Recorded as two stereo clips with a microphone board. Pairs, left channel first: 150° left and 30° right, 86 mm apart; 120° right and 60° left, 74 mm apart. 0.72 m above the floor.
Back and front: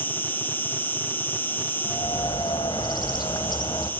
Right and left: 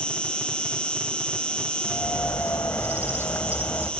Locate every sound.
0.0 s an insect: 175° right, 1.6 m
1.9 s a bird: 175° right, 2.0 m